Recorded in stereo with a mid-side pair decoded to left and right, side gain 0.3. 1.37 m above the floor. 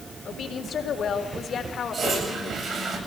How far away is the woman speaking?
About 3.5 m.